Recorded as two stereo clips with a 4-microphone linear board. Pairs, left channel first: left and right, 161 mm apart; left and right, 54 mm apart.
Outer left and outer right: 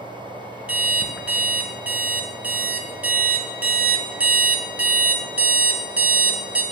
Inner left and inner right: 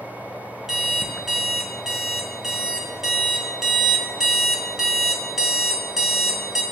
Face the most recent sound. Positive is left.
turn(degrees=-10)  # may be behind; listen again after turning